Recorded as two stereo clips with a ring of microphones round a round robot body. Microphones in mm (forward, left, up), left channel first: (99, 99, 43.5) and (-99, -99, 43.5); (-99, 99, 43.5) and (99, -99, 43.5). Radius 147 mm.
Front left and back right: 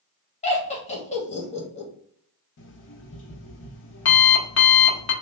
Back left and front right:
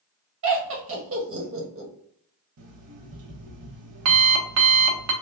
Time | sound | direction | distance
0.4 | laughter | 20° right | 1.4 m
2.6 | an alarm clock | 5° right | 0.8 m